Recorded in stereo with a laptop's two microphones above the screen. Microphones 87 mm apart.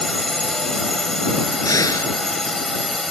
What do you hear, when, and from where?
0.0 s a drone: 5° left (ahead or behind)
1.6 s breathing: 40° left (ahead or behind)